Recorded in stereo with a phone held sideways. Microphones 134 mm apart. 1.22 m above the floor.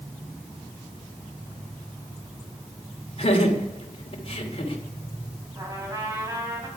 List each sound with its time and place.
3.2 s laughter: 45° left (ahead or behind), 3 m
5.5 s a trumpet: 25° right (ahead or behind), 4.5 m